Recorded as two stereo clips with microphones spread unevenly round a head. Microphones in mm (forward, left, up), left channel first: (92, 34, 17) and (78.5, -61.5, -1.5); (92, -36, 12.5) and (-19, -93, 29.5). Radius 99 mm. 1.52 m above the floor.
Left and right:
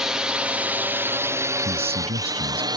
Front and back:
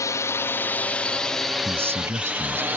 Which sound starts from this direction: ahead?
A drone, at 0.0 s.